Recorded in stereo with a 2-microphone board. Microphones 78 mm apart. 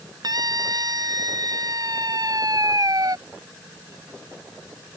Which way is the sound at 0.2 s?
55° right (ahead or behind).